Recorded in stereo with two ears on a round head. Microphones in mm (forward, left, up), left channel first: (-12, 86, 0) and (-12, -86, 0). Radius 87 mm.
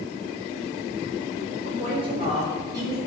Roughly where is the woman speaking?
Right.